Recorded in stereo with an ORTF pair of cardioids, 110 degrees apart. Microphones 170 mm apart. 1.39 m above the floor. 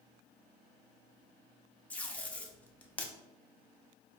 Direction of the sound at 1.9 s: 10° left.